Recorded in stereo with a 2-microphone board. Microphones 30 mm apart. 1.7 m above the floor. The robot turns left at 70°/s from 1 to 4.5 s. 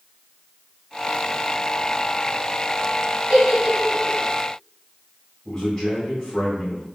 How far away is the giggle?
About 1.3 m.